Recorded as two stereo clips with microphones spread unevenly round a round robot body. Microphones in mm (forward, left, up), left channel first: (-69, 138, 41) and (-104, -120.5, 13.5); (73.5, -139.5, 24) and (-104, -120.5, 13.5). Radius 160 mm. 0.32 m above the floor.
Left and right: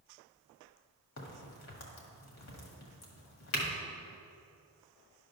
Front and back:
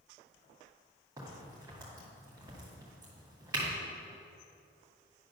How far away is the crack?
About 1.7 m.